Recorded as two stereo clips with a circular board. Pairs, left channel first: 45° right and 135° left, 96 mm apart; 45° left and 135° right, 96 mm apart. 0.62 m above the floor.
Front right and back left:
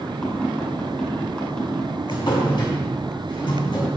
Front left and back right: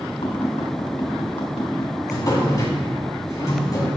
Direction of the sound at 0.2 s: 30° left.